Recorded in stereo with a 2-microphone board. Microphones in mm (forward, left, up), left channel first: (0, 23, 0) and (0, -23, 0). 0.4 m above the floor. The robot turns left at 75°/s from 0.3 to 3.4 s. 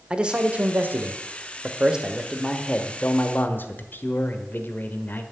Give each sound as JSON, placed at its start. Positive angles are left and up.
{"t": 0.1, "sound": "a man speaking", "azimuth_deg": -35, "distance_m": 1.1}